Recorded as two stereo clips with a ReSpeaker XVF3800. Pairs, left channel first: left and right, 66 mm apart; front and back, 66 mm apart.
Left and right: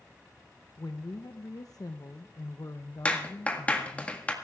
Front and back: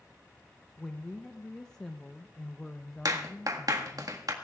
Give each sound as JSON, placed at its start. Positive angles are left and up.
{"t": 0.8, "sound": "a woman speaking", "azimuth_deg": 75, "distance_m": 0.6}
{"t": 3.0, "sound": "a clap", "azimuth_deg": 160, "distance_m": 1.6}